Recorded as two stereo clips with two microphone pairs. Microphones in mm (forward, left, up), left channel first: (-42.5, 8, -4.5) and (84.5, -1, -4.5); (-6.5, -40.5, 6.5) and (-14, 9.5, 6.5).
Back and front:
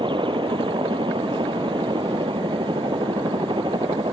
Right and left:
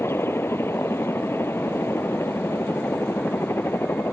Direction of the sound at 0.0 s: 50° right.